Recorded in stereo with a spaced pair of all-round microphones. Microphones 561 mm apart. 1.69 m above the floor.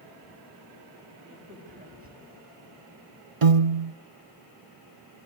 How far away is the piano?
About 0.9 m.